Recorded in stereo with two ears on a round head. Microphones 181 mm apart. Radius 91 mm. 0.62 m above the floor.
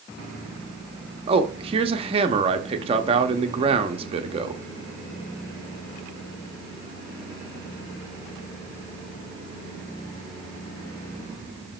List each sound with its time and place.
1.3 s a man speaking: 30° right (ahead or behind), 0.6 m